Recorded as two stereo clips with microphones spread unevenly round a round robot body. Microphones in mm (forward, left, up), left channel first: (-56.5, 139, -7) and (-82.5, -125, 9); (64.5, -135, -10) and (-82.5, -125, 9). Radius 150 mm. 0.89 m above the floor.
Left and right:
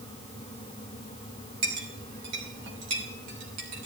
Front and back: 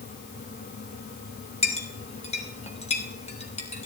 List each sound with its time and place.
1.6 s a clink: 50° right, 2.5 m